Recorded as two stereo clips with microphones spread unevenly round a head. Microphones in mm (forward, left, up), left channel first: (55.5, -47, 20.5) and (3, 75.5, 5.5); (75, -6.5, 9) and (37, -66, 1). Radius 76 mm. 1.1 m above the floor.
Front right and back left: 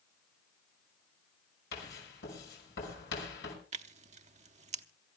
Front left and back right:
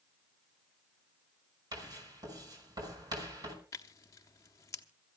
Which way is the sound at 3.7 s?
85° left.